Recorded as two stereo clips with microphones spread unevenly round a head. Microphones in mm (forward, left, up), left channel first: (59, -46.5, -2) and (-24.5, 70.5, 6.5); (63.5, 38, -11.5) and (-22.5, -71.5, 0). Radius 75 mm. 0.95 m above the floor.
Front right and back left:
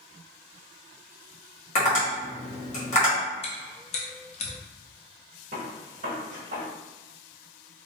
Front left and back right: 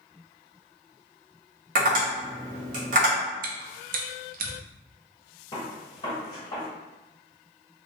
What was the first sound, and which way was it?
Tapping, 100° right.